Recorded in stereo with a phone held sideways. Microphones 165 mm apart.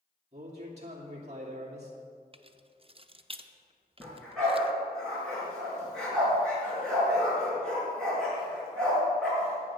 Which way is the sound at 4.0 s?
5° left (ahead or behind).